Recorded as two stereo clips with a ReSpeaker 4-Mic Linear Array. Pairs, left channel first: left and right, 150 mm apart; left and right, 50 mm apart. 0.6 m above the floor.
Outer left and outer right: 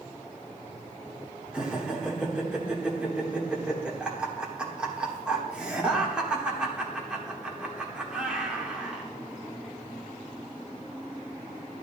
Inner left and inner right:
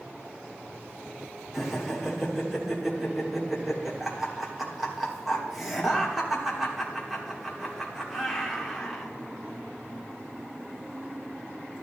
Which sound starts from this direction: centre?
Laughter, at 1.5 s.